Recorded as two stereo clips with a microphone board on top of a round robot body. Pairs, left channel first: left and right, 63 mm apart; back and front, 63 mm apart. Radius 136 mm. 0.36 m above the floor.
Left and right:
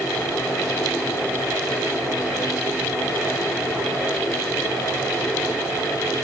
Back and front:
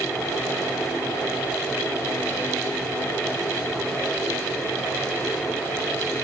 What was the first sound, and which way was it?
Only background noise.